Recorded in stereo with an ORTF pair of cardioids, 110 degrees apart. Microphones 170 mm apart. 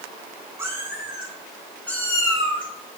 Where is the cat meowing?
15° right, 4 m; by 3.0 s 45° left, 3 m.